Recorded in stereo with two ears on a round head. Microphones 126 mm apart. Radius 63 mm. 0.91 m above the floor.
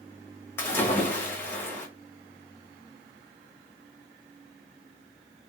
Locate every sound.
0.6 s a splash: 15° left (ahead or behind), 1.2 m